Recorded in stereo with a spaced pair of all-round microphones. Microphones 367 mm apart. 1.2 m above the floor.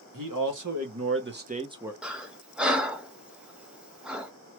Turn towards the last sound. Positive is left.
turn(degrees=-5)  # may be behind; listen again after turning